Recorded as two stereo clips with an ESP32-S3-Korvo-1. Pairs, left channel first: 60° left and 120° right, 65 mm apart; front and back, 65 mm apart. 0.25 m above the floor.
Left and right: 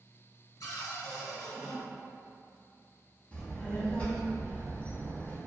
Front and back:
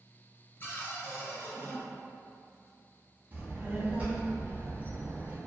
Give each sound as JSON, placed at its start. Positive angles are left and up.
{"t": 0.6, "sound": "a cupboard door", "azimuth_deg": 50, "distance_m": 0.8}
{"t": 3.3, "sound": "a child speaking", "azimuth_deg": 125, "distance_m": 0.8}